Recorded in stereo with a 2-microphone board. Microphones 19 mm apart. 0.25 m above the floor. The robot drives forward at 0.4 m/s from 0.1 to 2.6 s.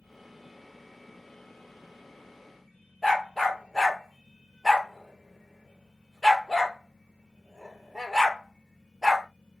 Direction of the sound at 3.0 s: 10° right (ahead or behind).